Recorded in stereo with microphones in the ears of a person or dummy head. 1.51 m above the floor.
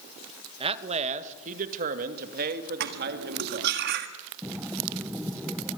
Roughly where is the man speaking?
Right.